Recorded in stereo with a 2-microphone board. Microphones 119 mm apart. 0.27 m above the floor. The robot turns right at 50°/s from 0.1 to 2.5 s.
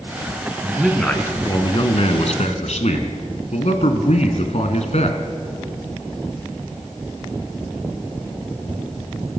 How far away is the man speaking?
About 2.5 m.